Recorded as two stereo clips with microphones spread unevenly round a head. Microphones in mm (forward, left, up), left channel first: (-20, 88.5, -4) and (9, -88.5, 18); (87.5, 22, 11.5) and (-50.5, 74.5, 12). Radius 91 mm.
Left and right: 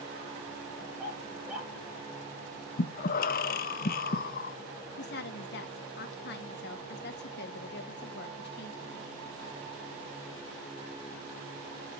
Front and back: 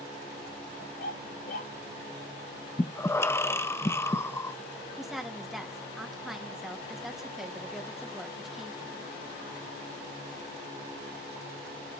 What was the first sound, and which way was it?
A dog barking, straight ahead.